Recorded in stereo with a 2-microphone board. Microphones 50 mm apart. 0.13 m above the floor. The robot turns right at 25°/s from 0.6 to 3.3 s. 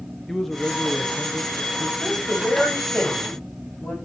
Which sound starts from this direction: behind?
A man speaking, at 0.3 s.